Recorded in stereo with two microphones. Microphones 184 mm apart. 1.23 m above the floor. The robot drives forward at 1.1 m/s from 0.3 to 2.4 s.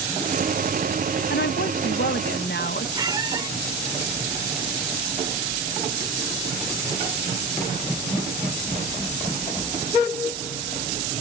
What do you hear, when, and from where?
1.3 s a woman speaking: 60° left (ahead or behind)
3.0 s a squeak: 20° right (ahead or behind)